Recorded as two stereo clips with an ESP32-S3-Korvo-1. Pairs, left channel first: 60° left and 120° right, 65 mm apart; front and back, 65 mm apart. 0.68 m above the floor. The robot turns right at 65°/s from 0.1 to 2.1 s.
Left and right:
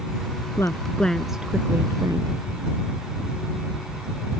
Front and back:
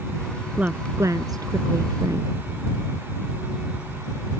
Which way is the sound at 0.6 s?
110° left.